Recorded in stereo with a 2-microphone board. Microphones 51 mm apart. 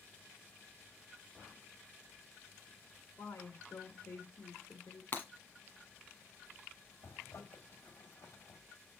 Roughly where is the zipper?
Left.